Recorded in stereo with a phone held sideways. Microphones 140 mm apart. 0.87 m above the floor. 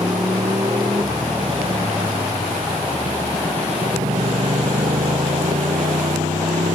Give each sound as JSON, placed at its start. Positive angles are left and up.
{"t": 0.0, "sound": "a motorcycle", "side_deg": -35}